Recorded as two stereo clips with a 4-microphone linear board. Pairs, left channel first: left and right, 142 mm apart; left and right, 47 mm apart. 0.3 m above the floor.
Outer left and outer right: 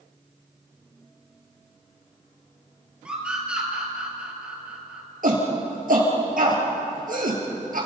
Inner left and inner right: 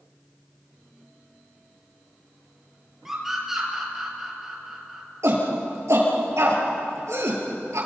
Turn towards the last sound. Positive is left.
turn(degrees=-75)  # may be behind; listen again after turning